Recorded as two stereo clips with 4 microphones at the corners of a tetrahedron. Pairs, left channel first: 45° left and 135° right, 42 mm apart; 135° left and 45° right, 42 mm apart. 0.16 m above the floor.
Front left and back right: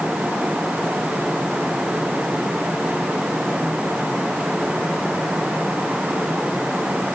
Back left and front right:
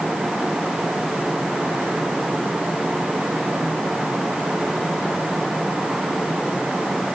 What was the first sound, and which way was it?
Only background noise.